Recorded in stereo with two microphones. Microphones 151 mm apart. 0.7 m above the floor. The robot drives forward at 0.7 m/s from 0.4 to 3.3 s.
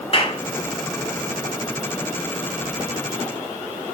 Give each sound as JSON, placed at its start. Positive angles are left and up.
{"t": 0.1, "sound": "a clap", "side_deg": 40, "distance_m": 2.5}